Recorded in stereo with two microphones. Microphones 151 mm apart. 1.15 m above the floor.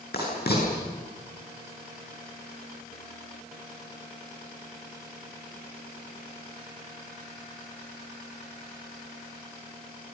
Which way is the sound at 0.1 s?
80° left.